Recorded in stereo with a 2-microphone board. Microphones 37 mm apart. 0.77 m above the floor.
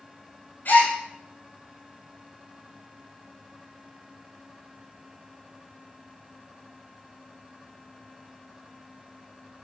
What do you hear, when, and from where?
0.7 s a gasp: 55° left (ahead or behind), 4 m